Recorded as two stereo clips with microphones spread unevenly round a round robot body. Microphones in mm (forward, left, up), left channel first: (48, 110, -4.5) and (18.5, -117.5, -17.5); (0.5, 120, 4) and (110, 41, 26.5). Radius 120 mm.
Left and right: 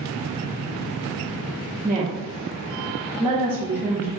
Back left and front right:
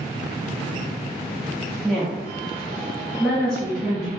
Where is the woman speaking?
165° right, 1.0 m.